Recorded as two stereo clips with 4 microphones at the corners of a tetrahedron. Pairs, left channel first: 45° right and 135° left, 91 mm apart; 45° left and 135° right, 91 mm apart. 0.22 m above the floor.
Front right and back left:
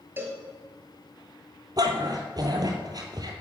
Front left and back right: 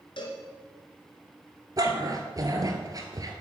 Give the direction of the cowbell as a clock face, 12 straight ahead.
10 o'clock.